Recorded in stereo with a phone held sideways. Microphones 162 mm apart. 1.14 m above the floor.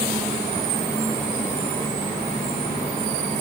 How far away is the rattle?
No rattle in this recording.